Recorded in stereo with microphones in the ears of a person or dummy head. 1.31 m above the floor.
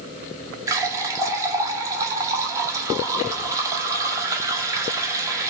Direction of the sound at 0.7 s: 20° right (ahead or behind).